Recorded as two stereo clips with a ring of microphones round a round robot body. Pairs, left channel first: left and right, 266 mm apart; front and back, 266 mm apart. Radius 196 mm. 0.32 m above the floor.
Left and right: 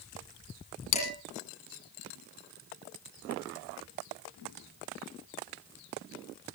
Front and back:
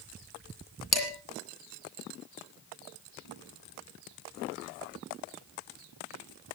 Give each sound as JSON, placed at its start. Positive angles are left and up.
{"t": 0.9, "sound": "dishes clattering", "azimuth_deg": 90, "distance_m": 9.5}